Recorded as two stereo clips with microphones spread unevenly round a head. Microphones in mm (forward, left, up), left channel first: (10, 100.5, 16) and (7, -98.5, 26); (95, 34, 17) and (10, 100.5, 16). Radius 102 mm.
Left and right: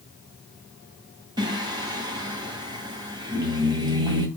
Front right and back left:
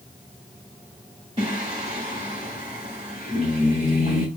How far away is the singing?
About 1.9 m.